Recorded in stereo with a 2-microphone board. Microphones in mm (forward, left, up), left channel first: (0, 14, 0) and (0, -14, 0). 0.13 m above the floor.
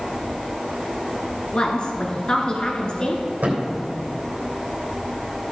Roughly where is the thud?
Right.